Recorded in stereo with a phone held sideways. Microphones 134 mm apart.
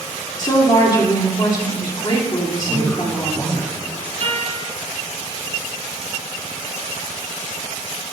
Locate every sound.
0.4 s a woman speaking: 35° left (ahead or behind), 3 m
2.6 s a man speaking: 10° left (ahead or behind), 3 m
4.2 s a guitar: 75° right (ahead or behind), 4.5 m